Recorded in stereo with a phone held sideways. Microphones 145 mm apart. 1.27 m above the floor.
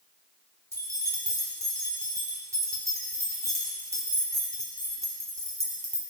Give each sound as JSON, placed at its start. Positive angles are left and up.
{"t": 0.7, "sound": "keys jangling", "side_deg": -20, "distance_m": 1.5}